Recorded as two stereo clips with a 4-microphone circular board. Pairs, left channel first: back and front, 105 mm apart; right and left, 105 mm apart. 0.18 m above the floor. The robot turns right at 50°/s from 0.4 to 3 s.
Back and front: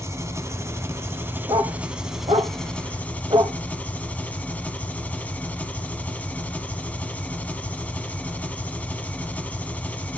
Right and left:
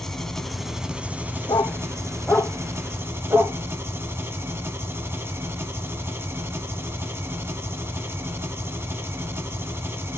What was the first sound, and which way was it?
An engine running, 5° right.